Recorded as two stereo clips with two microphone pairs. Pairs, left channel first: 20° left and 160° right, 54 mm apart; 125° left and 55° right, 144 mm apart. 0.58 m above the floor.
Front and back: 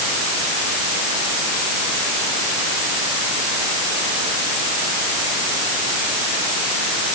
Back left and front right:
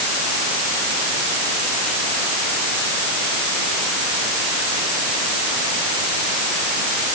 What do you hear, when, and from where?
Only background noise.